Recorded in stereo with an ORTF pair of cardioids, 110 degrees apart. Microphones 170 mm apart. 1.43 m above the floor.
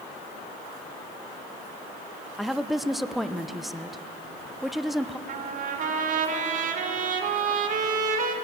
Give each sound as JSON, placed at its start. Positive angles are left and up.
{"t": 2.4, "sound": "a woman speaking", "azimuth_deg": 0, "distance_m": 0.9}
{"t": 5.3, "sound": "a trumpet", "azimuth_deg": -50, "distance_m": 2.5}